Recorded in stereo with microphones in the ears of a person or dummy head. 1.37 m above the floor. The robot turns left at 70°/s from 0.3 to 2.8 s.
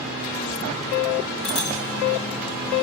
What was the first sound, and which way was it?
A bicycle bell, 50° left (ahead or behind).